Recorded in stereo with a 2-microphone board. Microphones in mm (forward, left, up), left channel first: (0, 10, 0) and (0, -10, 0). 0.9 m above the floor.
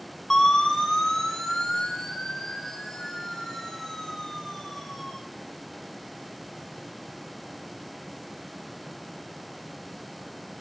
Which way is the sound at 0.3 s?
20° left (ahead or behind).